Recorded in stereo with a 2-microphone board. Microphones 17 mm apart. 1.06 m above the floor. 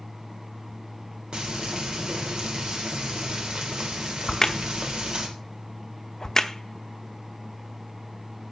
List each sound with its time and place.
1.3 s frying: 55° right (ahead or behind), 3 m
4.3 s a crack: 30° left (ahead or behind), 1.0 m